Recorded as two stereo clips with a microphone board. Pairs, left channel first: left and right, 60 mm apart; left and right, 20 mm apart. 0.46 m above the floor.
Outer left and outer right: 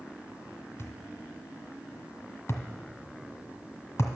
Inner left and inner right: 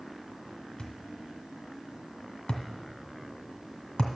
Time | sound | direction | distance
0.8 | a thud | 55° left (ahead or behind) | 1.4 m